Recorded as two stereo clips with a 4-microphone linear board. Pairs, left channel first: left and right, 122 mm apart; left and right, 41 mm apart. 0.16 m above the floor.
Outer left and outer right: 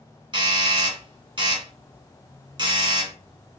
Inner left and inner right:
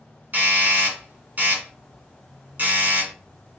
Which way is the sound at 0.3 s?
40° right (ahead or behind).